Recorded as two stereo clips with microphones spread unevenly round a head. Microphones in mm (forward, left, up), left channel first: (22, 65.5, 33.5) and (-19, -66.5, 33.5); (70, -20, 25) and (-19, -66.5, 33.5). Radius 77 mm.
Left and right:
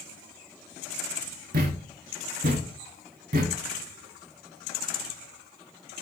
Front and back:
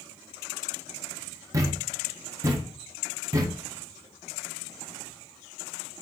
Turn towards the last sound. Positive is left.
turn(degrees=-110)